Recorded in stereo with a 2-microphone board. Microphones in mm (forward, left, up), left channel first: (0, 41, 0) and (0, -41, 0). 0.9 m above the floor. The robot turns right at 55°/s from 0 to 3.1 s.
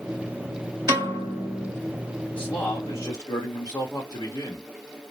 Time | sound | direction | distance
0.9 | a piano | 50° right | 1.7 m
2.3 | a man speaking | 20° left | 1.5 m